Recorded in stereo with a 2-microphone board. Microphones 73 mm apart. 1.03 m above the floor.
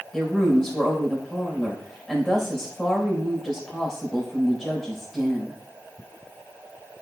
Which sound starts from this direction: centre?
A woman speaking, at 0.1 s.